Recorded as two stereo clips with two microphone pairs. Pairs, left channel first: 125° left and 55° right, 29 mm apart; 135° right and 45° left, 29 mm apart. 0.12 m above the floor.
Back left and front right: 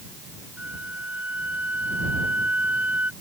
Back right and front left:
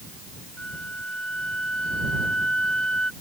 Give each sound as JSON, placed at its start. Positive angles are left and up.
{"t": 0.6, "sound": "a flute", "azimuth_deg": -80}